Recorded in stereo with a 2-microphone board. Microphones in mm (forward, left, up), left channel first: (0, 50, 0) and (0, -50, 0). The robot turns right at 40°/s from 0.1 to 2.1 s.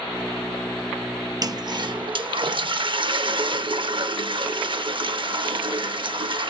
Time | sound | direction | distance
1.4 | a toilet flushing | 40° right (ahead or behind) | 0.6 m